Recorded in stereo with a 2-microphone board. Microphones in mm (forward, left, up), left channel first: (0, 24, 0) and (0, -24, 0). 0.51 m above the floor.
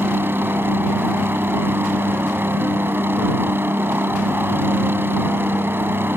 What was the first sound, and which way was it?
A helicopter, 50° right (ahead or behind).